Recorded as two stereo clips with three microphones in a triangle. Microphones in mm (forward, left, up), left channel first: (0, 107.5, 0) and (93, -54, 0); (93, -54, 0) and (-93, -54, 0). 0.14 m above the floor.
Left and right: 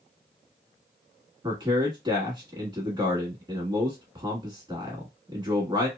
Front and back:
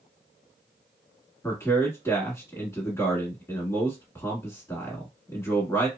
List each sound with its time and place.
1.4 s a man speaking: 55° right, 1.1 m